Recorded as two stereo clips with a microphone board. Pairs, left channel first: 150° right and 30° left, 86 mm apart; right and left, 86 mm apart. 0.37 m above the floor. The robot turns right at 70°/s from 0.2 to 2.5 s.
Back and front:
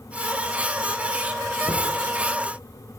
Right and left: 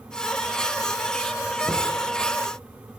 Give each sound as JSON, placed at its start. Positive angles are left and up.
{"t": 1.7, "sound": "knocking", "azimuth_deg": -155, "distance_m": 5.0}